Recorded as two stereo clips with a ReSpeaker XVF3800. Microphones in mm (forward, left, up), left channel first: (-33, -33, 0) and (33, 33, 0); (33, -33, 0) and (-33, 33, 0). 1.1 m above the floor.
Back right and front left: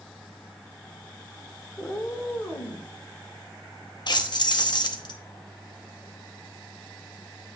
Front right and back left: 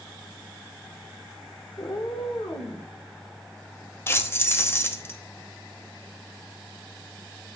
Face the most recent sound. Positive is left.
turn(degrees=-105)